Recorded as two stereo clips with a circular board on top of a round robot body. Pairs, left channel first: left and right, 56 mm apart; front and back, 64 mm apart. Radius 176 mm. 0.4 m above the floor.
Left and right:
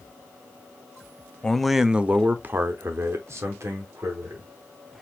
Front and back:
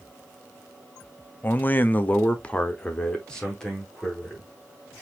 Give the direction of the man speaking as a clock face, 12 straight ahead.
11 o'clock.